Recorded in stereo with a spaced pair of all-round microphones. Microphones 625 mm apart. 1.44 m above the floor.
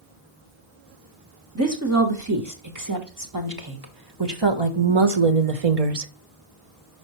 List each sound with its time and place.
1.6 s a woman speaking: 25° right (ahead or behind), 2.5 m; by 6.1 s 75° right (ahead or behind), 0.9 m